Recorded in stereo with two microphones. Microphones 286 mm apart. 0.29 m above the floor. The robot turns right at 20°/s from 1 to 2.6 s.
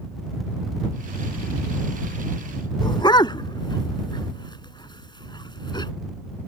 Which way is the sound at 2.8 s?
15° left (ahead or behind).